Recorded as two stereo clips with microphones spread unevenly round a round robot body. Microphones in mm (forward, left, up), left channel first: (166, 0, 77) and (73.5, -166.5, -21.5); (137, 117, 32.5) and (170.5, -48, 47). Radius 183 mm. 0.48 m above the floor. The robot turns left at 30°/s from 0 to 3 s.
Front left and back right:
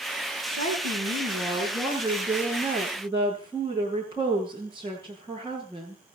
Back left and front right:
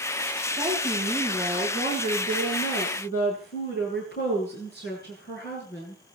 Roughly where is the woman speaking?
Behind right.